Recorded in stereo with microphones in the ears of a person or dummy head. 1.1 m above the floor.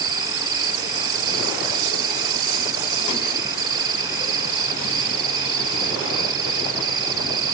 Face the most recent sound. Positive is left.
turn(degrees=-25)  # may be behind; listen again after turning